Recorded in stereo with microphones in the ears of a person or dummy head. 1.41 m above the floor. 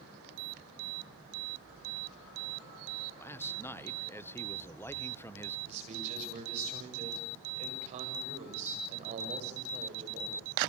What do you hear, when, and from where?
3.2 s a man speaking: 15° left (ahead or behind), 1.0 m
5.7 s a man speaking: 40° right (ahead or behind), 8.5 m